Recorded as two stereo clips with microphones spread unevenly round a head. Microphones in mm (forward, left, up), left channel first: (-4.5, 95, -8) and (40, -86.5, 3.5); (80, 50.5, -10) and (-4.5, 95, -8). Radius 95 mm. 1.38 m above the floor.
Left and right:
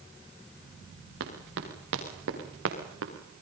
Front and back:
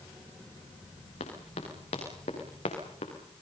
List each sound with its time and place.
1.2 s running footsteps: 55° right, 6 m; by 3.1 s 60° right, 5.5 m